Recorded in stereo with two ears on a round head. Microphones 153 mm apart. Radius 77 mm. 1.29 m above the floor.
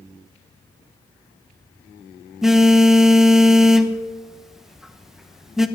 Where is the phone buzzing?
Centre (ahead or behind), 0.7 m.